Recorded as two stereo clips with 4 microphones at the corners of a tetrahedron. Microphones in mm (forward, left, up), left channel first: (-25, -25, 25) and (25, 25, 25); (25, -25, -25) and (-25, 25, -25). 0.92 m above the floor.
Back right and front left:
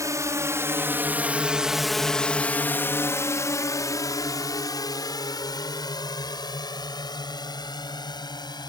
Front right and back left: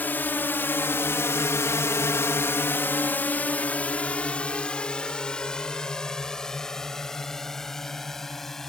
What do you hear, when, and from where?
0.0 s a drone: 15° left; by 8.7 s 130° right